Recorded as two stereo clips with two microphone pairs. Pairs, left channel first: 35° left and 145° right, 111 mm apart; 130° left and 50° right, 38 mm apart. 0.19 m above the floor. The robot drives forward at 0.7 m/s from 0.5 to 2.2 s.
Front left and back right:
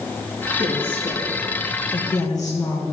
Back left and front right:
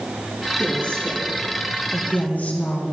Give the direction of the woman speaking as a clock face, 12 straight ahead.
10 o'clock.